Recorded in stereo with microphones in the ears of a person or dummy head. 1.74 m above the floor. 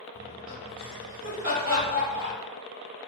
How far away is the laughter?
About 1.7 m.